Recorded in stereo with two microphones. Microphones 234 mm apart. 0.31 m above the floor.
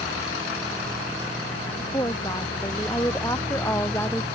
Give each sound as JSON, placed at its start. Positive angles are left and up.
{"t": 1.8, "sound": "a woman speaking", "side_deg": 15}